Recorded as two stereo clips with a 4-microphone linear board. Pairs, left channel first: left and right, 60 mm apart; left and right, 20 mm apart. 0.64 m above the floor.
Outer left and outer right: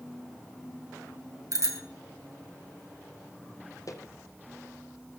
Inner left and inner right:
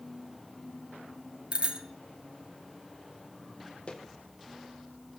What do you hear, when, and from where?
1.5 s a bicycle bell: 70° right (ahead or behind), 2.5 m
3.9 s footsteps: 65° left (ahead or behind), 1.5 m